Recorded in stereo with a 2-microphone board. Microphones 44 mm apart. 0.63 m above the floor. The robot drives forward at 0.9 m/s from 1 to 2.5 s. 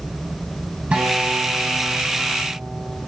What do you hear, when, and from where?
0.9 s a guitar: 30° right (ahead or behind), 4 m; by 3.0 s 25° right (ahead or behind), 5 m